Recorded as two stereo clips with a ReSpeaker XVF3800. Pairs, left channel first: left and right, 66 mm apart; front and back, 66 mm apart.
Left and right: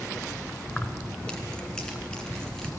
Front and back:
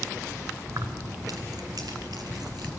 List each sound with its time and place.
0.7 s keys jangling: 160° left, 1.5 m; by 2.7 s 170° left, 4 m